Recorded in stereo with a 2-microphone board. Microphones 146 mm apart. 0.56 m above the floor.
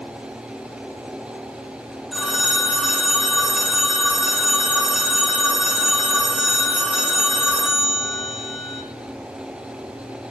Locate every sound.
2.1 s a phone ringing: 5° right (ahead or behind), 1.0 m